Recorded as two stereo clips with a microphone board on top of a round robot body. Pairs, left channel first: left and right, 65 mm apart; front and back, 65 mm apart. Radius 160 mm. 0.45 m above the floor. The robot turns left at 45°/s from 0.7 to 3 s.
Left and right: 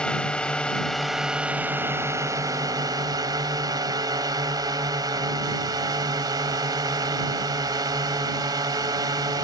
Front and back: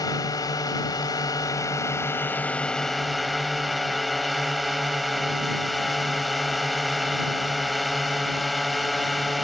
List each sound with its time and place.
0.0 s a drone: 15° left; by 9.4 s 90° right